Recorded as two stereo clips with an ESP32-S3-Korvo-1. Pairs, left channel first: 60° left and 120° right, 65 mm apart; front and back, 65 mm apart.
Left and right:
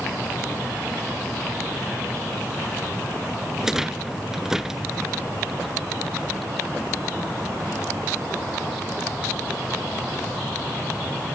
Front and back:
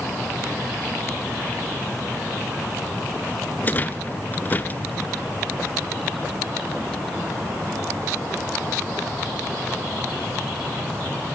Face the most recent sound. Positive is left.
turn(degrees=-40)